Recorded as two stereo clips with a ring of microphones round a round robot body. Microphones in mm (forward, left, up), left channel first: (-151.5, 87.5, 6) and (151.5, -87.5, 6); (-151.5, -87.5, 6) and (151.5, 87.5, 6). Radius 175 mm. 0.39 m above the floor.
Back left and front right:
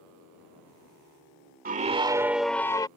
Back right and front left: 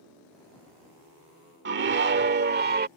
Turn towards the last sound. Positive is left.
turn(degrees=80)